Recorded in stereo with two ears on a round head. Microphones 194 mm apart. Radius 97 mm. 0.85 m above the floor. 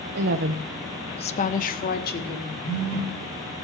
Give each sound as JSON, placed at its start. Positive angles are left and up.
{"t": 0.1, "sound": "a woman speaking", "side_deg": -55, "distance_m": 1.0}
{"t": 2.6, "sound": "a phone buzzing", "side_deg": 45, "distance_m": 6.0}